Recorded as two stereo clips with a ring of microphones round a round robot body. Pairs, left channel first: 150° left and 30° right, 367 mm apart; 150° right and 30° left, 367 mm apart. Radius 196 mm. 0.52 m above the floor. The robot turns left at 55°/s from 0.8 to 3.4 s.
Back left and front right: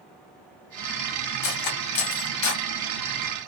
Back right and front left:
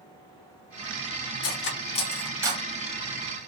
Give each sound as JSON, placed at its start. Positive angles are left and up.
{"t": 1.4, "sound": "cutlery clinking", "azimuth_deg": 165, "distance_m": 0.9}